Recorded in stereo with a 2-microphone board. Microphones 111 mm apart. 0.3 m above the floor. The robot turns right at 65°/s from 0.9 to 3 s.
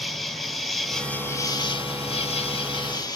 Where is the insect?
Straight ahead, 0.8 m; by 3.2 s 135° left, 0.8 m.